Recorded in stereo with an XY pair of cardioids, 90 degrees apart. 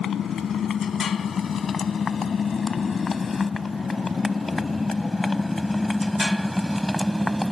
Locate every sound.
0.0 s a motorcycle: 65° left; by 7.5 s 5° right